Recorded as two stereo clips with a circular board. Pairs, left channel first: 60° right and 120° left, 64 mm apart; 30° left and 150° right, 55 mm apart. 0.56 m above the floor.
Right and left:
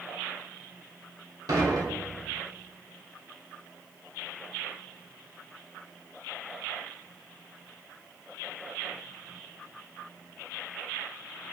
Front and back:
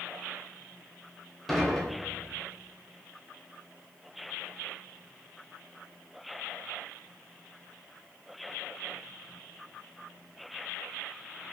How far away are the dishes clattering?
About 1.2 m.